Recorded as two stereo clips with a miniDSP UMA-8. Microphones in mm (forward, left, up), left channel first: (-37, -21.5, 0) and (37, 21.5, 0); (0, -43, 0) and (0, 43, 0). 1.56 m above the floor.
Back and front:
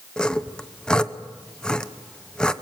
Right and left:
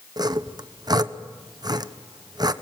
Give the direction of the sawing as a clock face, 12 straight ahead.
8 o'clock.